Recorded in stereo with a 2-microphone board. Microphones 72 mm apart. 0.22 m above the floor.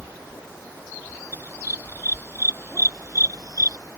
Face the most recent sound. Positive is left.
turn(degrees=-55)  # may be behind; listen again after turning